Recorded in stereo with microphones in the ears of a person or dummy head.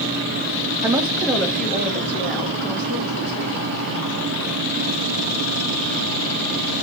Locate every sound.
0.8 s a woman speaking: 10° right (ahead or behind), 0.6 m; by 4.1 s 15° left (ahead or behind), 2 m